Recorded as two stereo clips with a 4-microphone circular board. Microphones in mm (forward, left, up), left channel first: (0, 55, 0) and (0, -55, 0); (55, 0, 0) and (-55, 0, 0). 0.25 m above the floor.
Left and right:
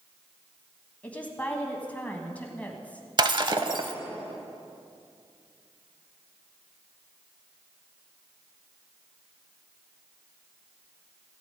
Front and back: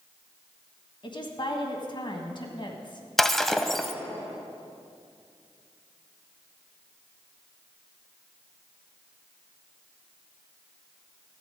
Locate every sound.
1.0 s a woman speaking: 15° left, 1.7 m
3.2 s breaking glass: 85° right, 0.5 m